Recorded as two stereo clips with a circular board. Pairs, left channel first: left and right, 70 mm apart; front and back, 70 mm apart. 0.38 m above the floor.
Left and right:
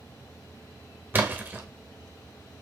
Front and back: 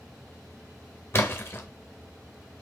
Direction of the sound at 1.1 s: 40° right.